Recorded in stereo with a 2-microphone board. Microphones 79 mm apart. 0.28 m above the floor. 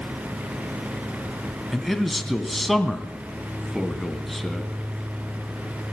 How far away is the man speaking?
About 2 m.